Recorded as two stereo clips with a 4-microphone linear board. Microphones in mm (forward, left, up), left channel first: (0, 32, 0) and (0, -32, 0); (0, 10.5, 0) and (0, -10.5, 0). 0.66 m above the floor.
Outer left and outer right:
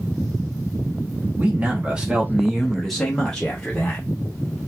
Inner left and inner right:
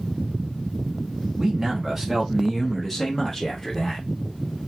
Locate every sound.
1.4 s a man speaking: 25° right (ahead or behind), 1.3 m; by 4.0 s 20° left (ahead or behind), 1.4 m